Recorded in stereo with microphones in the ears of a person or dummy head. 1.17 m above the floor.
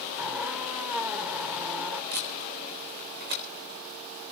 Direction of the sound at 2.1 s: 55° right (ahead or behind).